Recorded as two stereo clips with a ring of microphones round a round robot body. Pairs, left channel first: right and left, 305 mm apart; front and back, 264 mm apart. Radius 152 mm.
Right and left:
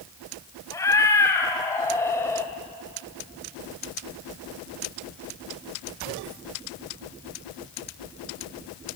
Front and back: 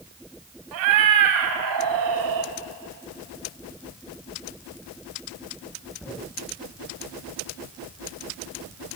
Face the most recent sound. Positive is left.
turn(degrees=-170)